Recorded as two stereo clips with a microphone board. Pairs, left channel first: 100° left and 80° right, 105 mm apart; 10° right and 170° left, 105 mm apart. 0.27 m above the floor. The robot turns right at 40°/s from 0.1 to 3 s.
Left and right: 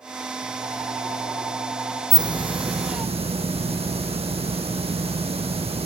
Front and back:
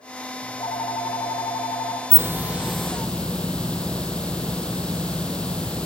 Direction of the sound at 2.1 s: 130° right.